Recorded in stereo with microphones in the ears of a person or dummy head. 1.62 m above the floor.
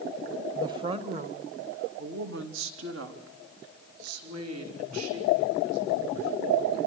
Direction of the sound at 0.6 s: 15° right (ahead or behind).